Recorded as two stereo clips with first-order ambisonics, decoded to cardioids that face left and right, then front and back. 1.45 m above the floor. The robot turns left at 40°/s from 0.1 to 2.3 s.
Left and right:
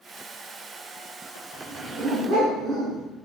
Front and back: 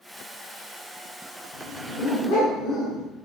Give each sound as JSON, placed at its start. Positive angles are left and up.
{"t": 1.5, "sound": "a dog barking", "azimuth_deg": 0, "distance_m": 3.5}